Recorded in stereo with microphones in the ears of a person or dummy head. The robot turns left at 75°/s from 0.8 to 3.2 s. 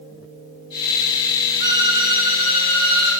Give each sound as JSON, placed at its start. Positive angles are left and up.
{"t": 1.6, "sound": "a violin", "side_deg": -15, "distance_m": 0.8}